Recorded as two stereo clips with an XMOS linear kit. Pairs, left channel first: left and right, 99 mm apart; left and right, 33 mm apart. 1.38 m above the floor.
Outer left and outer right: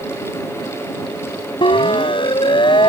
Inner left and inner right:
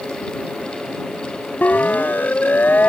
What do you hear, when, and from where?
1.6 s a siren: 60° left (ahead or behind); by 2.9 s 55° left (ahead or behind)